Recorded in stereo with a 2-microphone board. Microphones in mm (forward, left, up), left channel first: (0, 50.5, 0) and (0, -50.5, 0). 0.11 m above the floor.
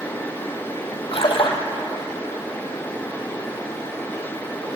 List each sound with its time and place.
1.1 s a splash: 65° left (ahead or behind), 3 m